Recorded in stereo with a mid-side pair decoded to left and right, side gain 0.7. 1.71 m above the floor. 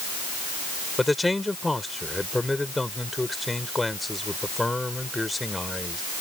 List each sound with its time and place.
1.0 s a man speaking: 10° left